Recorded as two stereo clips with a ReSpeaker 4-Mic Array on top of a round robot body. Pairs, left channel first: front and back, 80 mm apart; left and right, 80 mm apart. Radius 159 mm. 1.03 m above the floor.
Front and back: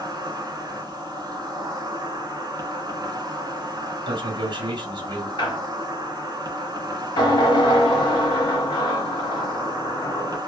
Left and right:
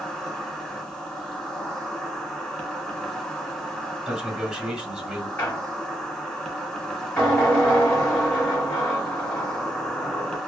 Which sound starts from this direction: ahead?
A squeak, at 5.4 s.